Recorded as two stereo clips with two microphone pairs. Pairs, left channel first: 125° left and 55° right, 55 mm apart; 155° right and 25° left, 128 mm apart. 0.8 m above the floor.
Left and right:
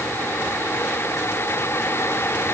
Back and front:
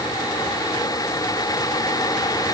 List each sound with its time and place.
Only background noise.